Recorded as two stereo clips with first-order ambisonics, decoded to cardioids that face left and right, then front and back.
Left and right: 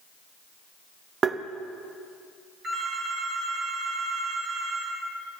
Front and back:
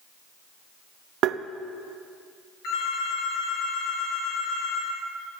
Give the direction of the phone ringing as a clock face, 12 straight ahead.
1 o'clock.